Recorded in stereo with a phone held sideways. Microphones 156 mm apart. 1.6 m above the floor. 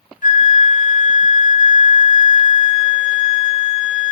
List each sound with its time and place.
0.2 s a flute: 55° left (ahead or behind), 0.6 m